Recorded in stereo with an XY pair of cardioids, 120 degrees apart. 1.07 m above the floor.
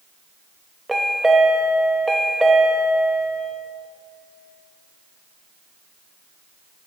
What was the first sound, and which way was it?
A chime, 10° right.